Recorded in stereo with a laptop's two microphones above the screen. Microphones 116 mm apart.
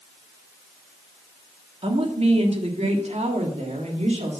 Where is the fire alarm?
I don't hear a fire alarm.